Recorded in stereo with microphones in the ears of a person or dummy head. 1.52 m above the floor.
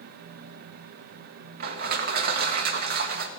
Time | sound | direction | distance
1.6 | crushing | 55° right (ahead or behind) | 1.1 m